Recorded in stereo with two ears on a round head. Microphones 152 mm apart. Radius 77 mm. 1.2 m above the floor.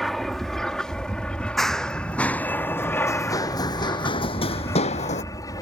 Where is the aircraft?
Centre (ahead or behind); by 5.6 s 20° left (ahead or behind).